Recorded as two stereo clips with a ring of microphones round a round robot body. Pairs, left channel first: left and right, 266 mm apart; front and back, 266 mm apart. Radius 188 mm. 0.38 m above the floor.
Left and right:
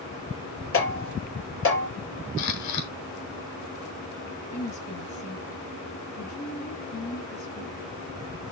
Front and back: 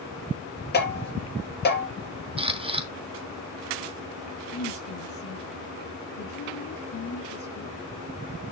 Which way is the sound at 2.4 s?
110° left.